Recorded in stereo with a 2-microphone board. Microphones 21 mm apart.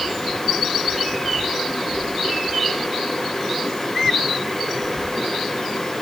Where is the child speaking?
I don't hear a child speaking.